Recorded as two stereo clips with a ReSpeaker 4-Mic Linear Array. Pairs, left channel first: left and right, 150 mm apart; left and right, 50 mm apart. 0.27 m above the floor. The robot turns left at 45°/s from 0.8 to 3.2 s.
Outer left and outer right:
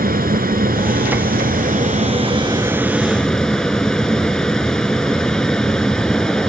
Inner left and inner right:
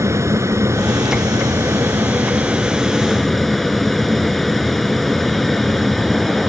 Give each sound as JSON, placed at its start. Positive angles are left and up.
{"t": 0.0, "sound": "an aircraft", "azimuth_deg": -75}